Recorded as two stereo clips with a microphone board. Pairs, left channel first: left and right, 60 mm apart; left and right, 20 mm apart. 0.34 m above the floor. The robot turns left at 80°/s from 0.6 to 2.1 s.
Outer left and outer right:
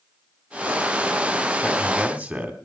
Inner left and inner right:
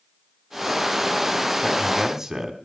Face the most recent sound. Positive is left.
turn(degrees=-25)